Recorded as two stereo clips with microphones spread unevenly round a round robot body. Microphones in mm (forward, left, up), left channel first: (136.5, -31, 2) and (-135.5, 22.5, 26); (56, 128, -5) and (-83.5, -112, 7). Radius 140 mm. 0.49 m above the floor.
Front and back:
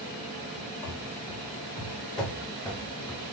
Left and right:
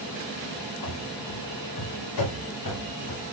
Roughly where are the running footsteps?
Ahead left.